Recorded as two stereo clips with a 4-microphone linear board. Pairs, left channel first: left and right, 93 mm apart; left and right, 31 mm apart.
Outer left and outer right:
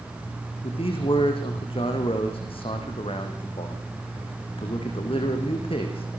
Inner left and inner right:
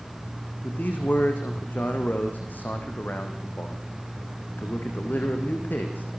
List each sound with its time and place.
0.6 s a man speaking: 75° left (ahead or behind), 5 m